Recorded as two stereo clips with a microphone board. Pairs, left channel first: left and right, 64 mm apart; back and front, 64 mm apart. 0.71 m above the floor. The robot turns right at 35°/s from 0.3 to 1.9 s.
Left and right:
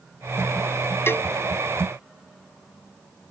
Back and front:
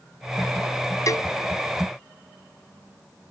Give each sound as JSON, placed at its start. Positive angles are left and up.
{"t": 1.1, "sound": "a cowbell", "azimuth_deg": 145}